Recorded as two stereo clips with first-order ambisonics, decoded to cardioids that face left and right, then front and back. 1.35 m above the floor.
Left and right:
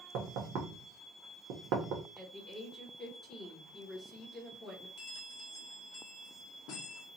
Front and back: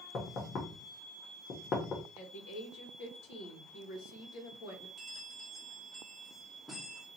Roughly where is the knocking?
Ahead right.